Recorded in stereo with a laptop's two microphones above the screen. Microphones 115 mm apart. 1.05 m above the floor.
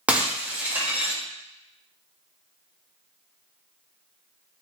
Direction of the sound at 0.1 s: 15° right (ahead or behind).